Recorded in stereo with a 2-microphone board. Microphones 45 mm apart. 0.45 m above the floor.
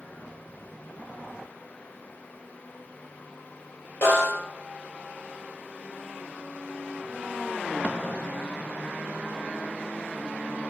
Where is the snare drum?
65° left (ahead or behind), 1.9 m.